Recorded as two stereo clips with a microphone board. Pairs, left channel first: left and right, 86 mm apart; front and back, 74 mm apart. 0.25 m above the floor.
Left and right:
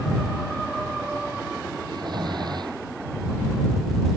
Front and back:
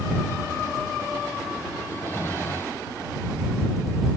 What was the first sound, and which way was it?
Snoring, 60° right.